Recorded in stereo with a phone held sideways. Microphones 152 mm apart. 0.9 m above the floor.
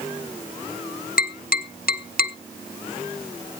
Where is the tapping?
80° left, 0.7 m.